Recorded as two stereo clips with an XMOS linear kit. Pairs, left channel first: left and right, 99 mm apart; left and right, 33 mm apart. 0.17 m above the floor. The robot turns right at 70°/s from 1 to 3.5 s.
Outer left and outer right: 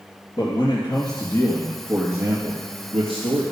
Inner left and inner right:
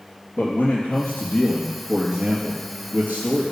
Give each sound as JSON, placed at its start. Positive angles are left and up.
{"t": 0.4, "sound": "a man speaking", "azimuth_deg": 110, "distance_m": 3.0}